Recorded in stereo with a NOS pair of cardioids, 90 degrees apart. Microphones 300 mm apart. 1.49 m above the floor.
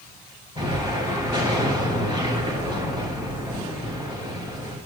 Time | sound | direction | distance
0.6 | an explosion | 15° right | 3.5 m